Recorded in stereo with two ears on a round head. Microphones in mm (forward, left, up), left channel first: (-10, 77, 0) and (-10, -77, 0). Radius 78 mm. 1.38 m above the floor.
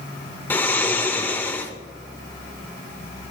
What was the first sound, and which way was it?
Snoring, 10° left (ahead or behind).